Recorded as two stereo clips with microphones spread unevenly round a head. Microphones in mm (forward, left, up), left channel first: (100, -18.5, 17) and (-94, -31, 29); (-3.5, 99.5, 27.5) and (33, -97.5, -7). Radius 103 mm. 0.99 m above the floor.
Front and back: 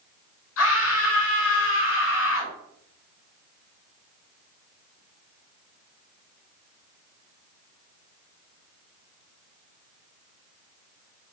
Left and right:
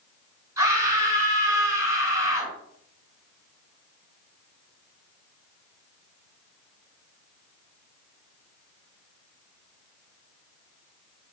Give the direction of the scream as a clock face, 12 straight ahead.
12 o'clock.